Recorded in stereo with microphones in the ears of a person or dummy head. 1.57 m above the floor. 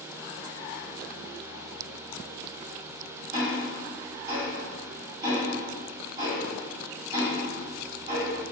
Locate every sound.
3.3 s ticking: 25° right (ahead or behind), 1.7 m